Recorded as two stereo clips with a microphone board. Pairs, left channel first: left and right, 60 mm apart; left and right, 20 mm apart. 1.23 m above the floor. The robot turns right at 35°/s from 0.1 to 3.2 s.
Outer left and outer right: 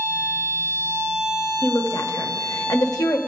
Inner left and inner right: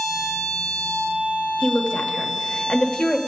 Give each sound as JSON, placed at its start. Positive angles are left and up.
{"t": 1.6, "sound": "a woman speaking", "side_deg": 45, "distance_m": 1.1}